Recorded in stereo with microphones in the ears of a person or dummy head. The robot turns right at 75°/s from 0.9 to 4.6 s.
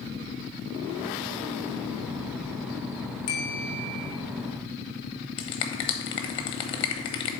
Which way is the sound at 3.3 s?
130° left.